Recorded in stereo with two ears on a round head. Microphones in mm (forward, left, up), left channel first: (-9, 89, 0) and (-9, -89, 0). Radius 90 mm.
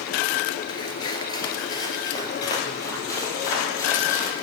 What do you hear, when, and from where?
0.7 s footsteps: 25° left (ahead or behind), 1.3 m; by 4.3 s 15° left (ahead or behind), 3 m